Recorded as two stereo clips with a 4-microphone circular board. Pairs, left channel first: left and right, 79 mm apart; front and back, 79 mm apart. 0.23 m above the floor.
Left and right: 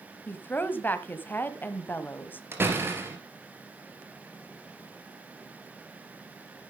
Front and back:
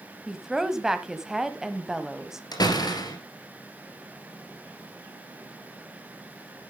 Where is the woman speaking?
105° left, 1.2 m.